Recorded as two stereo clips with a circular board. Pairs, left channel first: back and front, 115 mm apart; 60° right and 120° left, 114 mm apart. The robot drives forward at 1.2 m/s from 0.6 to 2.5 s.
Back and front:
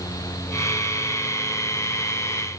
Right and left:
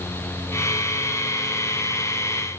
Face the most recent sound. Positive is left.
No sound to turn to.